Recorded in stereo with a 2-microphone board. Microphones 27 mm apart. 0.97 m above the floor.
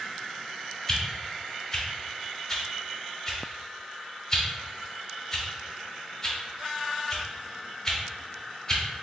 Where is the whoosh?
20° left (ahead or behind), 0.9 m.